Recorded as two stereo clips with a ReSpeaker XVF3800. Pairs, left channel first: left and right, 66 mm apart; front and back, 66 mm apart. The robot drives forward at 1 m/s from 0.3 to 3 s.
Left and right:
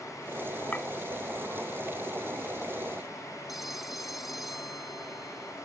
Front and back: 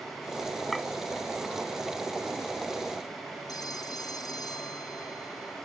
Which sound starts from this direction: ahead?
A phone ringing, at 3.5 s.